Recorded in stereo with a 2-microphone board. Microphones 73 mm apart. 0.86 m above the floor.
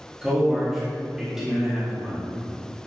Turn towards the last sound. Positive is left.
turn(degrees=-10)  # may be behind; listen again after turning